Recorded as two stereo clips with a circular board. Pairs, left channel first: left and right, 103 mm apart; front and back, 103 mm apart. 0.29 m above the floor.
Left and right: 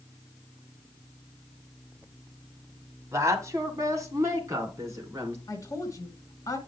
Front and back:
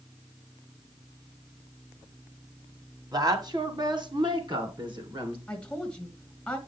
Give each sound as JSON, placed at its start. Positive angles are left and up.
{"t": 3.1, "sound": "a woman speaking", "azimuth_deg": -145, "distance_m": 1.5}
{"t": 5.5, "sound": "a woman speaking", "azimuth_deg": 75, "distance_m": 1.8}